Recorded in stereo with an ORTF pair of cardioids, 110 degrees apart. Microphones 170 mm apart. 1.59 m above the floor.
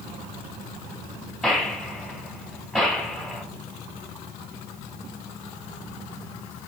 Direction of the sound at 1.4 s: Straight ahead.